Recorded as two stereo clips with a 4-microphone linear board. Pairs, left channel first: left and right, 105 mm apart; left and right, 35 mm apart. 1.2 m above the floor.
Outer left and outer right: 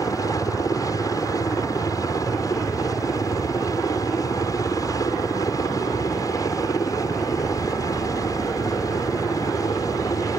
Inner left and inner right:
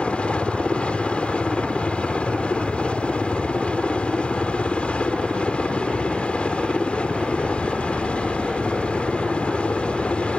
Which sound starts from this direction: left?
A helicopter, at 0.0 s.